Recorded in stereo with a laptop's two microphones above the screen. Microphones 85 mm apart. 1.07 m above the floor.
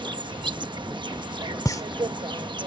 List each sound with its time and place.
0.0 s an insect: 65° right (ahead or behind)
1.6 s a pop: 40° left (ahead or behind)